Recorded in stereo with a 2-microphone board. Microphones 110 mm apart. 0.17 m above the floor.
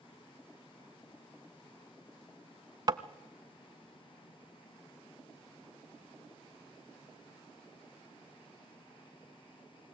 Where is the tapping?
35° right (ahead or behind), 0.8 m.